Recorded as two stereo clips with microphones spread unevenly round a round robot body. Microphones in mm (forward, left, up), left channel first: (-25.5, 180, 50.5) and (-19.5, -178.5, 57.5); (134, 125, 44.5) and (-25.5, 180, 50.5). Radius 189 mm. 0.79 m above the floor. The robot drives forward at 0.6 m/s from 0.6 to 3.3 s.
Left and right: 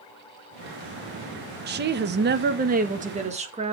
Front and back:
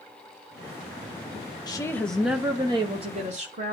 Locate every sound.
1.7 s a woman speaking: 55° right, 0.8 m; by 3.7 s 160° right, 1.1 m